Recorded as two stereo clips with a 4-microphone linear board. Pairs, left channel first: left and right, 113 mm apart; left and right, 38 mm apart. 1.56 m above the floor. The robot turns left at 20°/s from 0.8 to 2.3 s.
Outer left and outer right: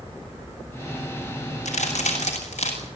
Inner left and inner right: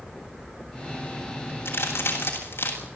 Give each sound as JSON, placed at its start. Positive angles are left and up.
{"t": 1.6, "sound": "a crack", "side_deg": 85, "distance_m": 8.0}